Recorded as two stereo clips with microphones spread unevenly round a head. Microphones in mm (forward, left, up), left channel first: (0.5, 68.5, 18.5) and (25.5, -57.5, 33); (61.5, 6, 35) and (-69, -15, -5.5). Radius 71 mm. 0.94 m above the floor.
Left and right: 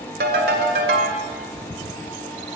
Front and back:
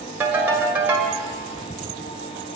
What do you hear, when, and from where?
0.2 s a ringtone: 90° right, 1.9 m